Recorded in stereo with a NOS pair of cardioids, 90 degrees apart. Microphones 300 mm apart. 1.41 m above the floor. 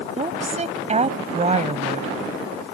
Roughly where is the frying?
No frying in this recording.